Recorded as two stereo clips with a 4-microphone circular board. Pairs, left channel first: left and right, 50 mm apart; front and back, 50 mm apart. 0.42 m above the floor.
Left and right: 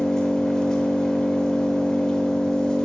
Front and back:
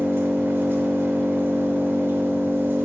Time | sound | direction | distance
0.0 | an engine running | 160° left | 0.7 m